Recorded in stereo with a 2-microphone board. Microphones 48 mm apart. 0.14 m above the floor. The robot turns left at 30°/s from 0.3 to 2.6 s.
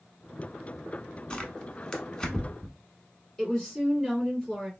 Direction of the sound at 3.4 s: 10° left (ahead or behind).